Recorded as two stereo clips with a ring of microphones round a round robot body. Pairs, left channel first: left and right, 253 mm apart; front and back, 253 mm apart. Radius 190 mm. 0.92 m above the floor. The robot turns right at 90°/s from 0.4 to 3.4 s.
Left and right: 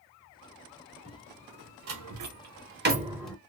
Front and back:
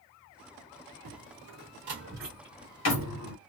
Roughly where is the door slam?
Behind.